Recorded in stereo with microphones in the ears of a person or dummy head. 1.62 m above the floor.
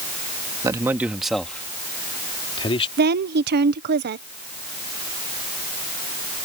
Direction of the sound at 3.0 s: 50° right (ahead or behind).